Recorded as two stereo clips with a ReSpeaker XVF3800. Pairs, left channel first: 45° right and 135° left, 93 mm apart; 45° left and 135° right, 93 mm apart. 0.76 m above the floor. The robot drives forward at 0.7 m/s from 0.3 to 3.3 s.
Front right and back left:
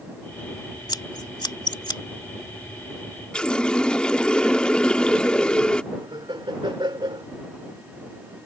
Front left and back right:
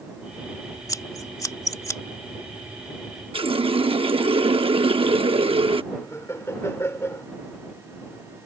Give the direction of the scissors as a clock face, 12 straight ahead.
12 o'clock.